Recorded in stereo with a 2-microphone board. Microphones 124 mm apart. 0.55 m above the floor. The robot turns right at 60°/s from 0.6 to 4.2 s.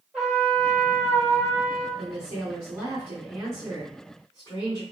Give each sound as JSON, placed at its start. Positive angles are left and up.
{"t": 0.1, "sound": "a trumpet", "azimuth_deg": 180, "distance_m": 1.9}
{"t": 2.0, "sound": "a woman speaking", "azimuth_deg": -90, "distance_m": 1.7}